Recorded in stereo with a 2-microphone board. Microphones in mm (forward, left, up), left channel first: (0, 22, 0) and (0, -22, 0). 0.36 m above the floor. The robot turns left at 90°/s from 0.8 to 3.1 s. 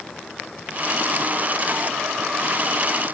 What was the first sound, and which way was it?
Only background noise.